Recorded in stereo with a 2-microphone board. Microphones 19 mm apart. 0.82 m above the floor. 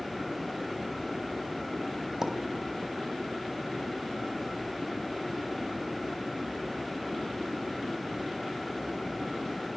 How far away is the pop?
About 3 m.